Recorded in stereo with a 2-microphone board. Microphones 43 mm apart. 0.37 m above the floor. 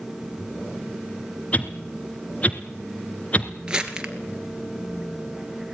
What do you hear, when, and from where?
1.5 s a whoosh: 30° left (ahead or behind), 1.9 m
3.7 s crumpling: 20° right (ahead or behind), 2.5 m